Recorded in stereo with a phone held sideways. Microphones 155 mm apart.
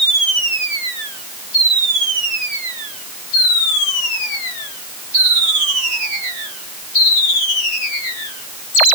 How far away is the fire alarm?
I don't hear a fire alarm.